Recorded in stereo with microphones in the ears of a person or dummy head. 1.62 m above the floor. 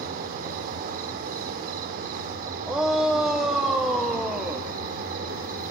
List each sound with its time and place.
0.0 s an insect: 55° right (ahead or behind), 2 m
2.7 s a shout: 10° right (ahead or behind), 1.3 m